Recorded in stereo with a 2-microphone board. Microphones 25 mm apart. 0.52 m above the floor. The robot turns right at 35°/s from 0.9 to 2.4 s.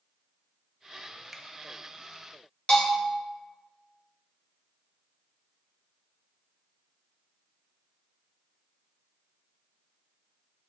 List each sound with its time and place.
1.3 s a finger snap: centre (ahead or behind), 0.6 m
2.7 s a bell: 50° left (ahead or behind), 2.0 m